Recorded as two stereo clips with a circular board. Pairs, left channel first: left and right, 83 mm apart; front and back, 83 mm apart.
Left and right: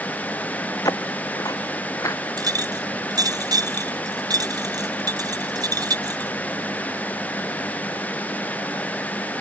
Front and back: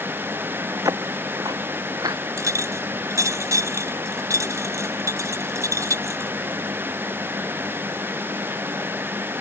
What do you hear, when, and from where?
0.8 s footsteps: 135° left; by 2.2 s 140° left
2.4 s a clink: 130° right